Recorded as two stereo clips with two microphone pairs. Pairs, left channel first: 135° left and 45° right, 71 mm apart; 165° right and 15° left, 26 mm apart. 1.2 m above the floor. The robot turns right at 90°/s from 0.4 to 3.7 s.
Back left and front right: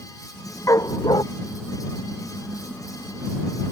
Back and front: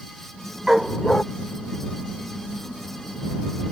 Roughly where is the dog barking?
Left.